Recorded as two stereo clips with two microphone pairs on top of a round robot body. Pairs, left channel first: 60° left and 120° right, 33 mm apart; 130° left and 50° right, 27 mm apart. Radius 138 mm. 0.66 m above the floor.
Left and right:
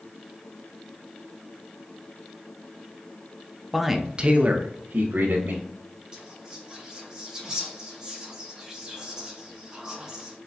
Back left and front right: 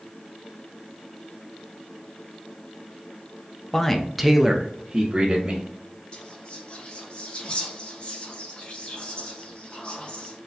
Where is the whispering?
170° left, 1.7 m.